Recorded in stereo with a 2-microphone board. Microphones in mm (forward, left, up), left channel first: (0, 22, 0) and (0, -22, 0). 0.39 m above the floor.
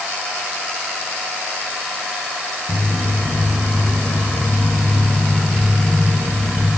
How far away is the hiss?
I don't hear a hiss.